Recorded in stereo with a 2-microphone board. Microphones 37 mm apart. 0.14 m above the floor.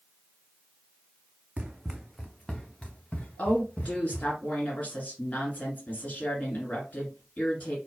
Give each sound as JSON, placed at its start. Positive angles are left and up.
{"t": 1.6, "sound": "running footsteps", "side_deg": -30, "distance_m": 0.7}
{"t": 3.4, "sound": "a woman speaking", "side_deg": 45, "distance_m": 2.0}